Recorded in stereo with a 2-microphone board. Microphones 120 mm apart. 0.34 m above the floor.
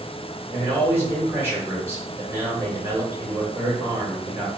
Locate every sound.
0.5 s a man speaking: 20° right (ahead or behind), 1.2 m